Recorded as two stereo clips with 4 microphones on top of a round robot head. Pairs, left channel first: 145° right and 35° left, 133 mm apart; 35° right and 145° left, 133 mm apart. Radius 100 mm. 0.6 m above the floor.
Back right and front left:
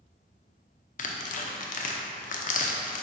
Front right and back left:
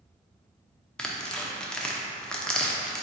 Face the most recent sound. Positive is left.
turn(degrees=-120)